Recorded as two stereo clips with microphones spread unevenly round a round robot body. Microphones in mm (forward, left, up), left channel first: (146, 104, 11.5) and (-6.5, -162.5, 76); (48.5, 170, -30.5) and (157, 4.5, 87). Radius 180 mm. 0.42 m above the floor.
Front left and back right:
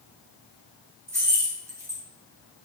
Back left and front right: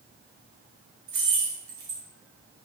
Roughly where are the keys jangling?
Ahead right.